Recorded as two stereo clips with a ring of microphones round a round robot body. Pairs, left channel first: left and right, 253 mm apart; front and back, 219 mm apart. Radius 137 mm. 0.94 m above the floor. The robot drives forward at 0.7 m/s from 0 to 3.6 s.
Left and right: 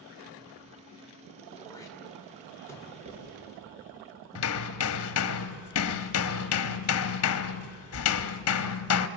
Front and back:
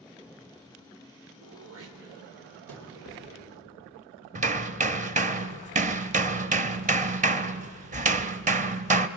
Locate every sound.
1.4 s throat clearing: 165° left, 2.5 m; by 2.9 s 170° left, 3.5 m
3.0 s writing: 145° right, 6 m
4.3 s hammering: 125° left, 0.7 m